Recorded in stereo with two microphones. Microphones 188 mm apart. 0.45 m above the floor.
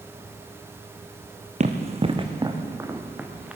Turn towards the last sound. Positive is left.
turn(degrees=-5)  # may be behind; listen again after turning